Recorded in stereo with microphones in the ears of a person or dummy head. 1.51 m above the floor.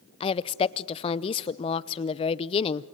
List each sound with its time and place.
0.2 s a woman speaking: 25° left (ahead or behind), 0.7 m